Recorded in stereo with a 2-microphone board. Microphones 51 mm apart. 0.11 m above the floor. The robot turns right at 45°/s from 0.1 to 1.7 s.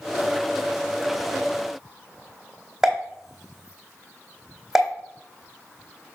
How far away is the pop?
About 1.7 m.